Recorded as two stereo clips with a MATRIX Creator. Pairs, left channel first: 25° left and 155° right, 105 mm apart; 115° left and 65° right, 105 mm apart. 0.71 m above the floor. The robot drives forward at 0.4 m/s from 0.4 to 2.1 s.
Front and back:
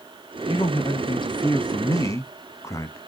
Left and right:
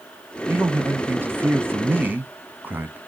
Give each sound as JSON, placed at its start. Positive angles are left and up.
{"t": 0.5, "sound": "a man speaking", "azimuth_deg": -5, "distance_m": 1.1}